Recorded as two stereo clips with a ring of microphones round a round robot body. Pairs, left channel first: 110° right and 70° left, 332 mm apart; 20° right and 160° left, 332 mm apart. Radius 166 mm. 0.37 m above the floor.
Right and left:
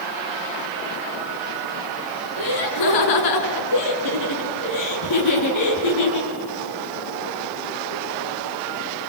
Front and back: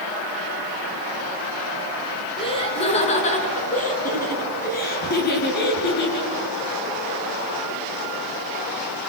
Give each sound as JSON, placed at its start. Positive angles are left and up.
{"t": 2.4, "sound": "laughter", "azimuth_deg": -95, "distance_m": 4.0}